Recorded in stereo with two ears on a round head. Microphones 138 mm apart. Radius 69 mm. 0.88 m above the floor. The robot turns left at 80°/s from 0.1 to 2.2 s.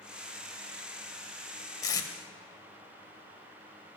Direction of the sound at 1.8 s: 20° left (ahead or behind).